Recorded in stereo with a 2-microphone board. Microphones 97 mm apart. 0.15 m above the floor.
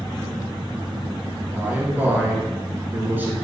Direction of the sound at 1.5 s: 20° right (ahead or behind).